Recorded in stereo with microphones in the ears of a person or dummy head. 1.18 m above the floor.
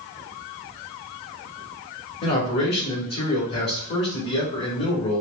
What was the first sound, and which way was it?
A man speaking, 50° left (ahead or behind).